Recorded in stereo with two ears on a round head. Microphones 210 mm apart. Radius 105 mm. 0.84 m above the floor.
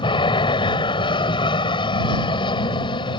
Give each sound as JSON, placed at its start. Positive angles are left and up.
{"t": 0.0, "sound": "an aircraft", "side_deg": 20}